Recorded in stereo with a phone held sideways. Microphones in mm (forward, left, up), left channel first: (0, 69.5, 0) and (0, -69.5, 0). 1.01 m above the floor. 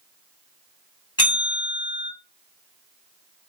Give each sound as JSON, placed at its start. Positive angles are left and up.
{"t": 1.2, "sound": "a bell", "side_deg": 35, "distance_m": 1.9}